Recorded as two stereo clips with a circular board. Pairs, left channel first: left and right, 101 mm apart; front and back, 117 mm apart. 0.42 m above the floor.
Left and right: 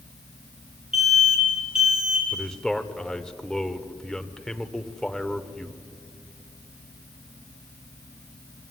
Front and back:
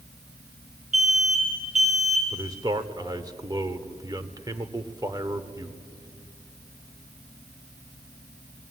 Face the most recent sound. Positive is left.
turn(degrees=170)